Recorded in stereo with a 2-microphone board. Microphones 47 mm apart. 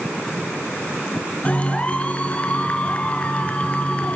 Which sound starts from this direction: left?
A clap, at 1.4 s.